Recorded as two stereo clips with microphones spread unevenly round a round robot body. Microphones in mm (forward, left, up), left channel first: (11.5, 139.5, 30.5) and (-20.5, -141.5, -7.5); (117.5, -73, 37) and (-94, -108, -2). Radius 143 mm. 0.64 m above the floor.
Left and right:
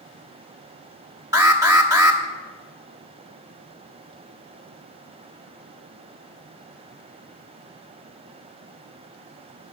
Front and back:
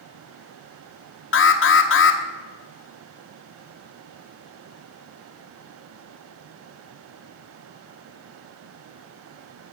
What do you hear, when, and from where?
1.3 s an alarm: 20° right, 1.2 m